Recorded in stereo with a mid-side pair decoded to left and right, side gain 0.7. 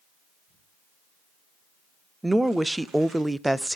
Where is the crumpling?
50° right, 8 m.